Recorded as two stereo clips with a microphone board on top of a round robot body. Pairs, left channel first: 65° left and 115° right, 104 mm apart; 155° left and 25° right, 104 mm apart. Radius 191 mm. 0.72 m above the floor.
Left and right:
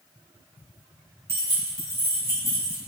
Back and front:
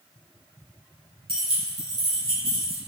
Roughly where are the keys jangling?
Ahead right.